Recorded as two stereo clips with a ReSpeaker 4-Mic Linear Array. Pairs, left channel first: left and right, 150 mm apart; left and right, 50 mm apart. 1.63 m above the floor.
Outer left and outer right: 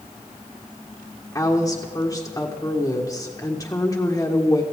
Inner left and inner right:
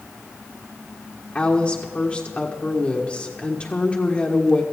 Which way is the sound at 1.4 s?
20° left (ahead or behind).